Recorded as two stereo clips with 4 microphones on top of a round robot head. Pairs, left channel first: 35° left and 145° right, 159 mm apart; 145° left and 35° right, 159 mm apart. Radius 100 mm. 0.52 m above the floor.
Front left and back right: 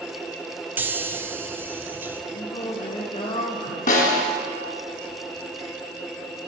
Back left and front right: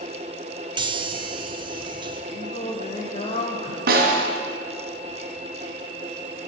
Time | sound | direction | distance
0.8 | a chime | 75° right | 0.7 m
2.3 | singing | 95° left | 0.9 m
3.9 | a snare drum | 5° right | 1.5 m